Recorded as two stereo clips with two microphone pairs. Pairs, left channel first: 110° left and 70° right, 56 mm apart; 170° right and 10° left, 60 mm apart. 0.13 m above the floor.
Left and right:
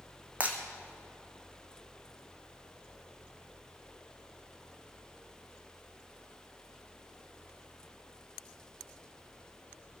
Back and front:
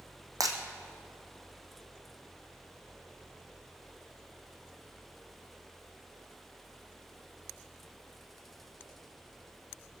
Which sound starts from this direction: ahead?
Breaking glass, at 0.4 s.